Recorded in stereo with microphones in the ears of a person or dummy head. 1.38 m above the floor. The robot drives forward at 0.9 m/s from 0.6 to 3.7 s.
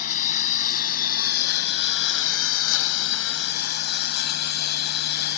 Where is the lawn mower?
45° left (ahead or behind); by 5.4 s 60° left (ahead or behind).